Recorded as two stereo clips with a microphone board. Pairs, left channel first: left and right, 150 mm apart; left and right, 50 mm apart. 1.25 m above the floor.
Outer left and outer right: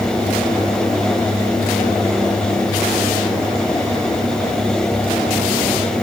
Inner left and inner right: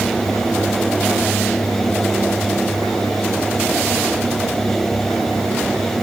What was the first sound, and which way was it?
Only background noise.